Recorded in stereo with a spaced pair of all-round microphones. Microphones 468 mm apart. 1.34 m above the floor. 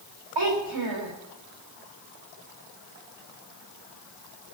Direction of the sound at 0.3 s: 80° right.